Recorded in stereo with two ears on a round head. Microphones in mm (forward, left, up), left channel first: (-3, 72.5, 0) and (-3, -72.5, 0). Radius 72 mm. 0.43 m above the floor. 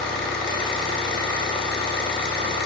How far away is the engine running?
About 1.3 m.